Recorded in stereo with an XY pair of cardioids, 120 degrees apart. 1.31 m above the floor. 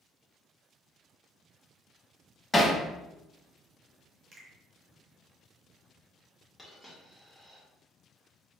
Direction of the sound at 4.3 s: 50° right.